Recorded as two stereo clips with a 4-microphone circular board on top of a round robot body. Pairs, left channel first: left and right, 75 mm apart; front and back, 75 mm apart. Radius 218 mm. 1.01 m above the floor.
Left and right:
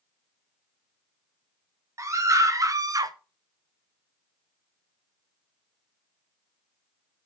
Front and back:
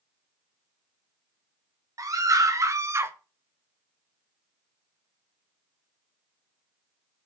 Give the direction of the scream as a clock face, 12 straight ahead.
5 o'clock.